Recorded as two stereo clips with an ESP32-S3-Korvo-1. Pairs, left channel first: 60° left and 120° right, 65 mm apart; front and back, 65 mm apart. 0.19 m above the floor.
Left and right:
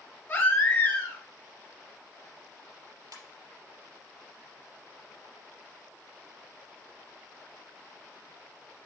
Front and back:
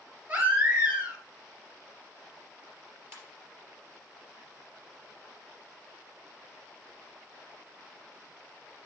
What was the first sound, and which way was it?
A baby crying, 120° left.